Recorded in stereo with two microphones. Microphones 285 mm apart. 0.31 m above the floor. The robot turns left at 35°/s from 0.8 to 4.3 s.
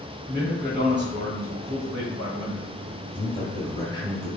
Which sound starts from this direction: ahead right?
A man speaking, at 0.3 s.